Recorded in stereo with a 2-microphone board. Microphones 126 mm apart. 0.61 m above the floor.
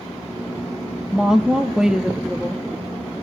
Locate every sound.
1.1 s a woman speaking: 5° right (ahead or behind), 0.6 m